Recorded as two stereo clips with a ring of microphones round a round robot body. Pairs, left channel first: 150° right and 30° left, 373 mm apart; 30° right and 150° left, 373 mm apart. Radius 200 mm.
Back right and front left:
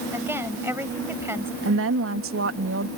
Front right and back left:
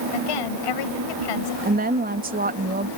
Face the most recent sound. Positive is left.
turn(degrees=85)